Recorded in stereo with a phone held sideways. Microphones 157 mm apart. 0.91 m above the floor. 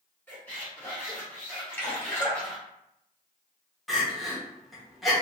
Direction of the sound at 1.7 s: 10° left (ahead or behind).